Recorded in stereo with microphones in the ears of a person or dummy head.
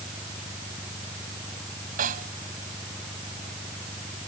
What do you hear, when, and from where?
0.0 s an engine running: centre (ahead or behind)
2.0 s a snare drum: 45° right (ahead or behind)